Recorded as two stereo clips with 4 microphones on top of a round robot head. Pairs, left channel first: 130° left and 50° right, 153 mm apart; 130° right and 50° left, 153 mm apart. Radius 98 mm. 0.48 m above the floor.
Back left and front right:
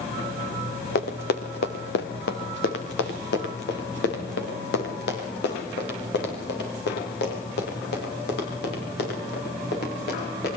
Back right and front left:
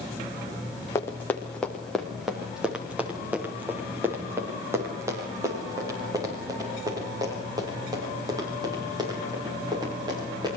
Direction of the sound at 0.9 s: 155° left.